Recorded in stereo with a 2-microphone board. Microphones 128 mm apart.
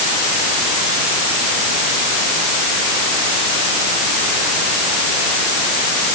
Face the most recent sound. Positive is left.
No sound to turn to.